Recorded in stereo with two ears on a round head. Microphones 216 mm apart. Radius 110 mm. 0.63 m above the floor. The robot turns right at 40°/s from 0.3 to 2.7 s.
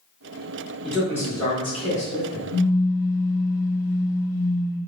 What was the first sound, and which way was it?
A man speaking, straight ahead.